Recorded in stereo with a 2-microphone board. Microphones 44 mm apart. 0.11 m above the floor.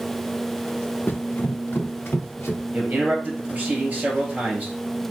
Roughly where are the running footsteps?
Left.